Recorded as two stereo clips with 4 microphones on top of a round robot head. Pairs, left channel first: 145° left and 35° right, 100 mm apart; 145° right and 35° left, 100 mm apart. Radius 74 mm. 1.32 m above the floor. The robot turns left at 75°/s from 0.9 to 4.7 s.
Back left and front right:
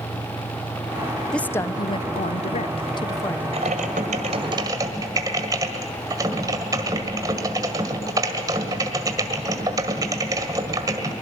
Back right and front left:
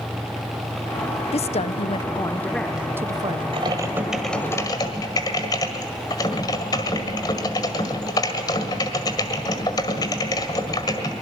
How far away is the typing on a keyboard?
About 1.6 m.